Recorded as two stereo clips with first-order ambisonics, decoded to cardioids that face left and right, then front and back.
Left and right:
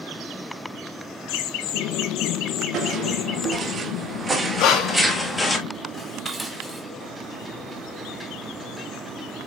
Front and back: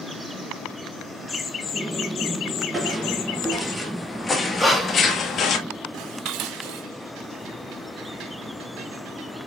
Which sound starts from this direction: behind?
Dishes clattering, at 5.9 s.